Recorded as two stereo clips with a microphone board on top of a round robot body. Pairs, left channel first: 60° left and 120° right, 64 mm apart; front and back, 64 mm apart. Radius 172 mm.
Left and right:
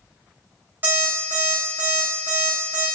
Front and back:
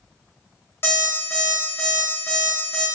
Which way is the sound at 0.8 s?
55° right.